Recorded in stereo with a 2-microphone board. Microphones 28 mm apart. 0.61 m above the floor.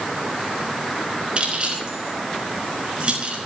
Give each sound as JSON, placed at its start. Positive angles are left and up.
{"t": 1.4, "sound": "keys jangling", "side_deg": -40, "distance_m": 4.5}